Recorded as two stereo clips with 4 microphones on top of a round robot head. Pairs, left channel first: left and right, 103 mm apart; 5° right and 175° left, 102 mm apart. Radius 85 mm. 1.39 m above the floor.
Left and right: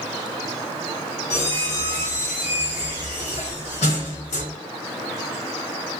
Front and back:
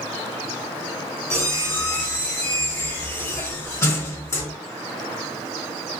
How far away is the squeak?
About 2.5 m.